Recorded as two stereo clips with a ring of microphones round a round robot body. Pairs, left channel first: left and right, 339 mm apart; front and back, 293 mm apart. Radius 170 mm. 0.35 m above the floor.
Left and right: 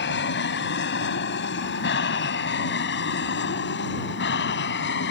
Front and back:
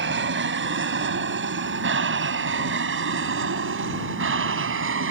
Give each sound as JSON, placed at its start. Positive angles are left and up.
{"t": 0.0, "sound": "an aircraft", "azimuth_deg": 140}